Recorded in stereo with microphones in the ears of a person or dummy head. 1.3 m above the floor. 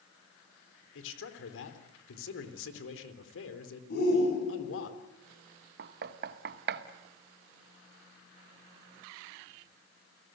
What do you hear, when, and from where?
0.9 s a man speaking: 75° left (ahead or behind), 3.5 m
3.9 s a shout: 55° left (ahead or behind), 9.5 m
5.8 s knocking: 60° right (ahead or behind), 1.2 m